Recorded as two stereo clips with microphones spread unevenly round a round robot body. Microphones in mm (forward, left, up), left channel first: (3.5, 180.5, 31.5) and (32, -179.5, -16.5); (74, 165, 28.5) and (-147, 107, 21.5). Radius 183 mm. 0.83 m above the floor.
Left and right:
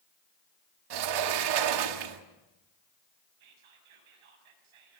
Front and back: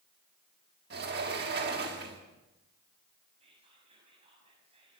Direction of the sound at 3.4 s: 90° right.